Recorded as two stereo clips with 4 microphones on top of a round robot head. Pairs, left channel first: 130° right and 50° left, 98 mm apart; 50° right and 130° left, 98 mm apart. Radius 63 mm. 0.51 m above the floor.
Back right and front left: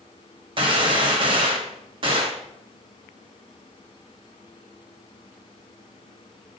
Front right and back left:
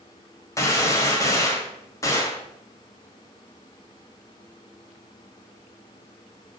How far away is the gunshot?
About 1.6 m.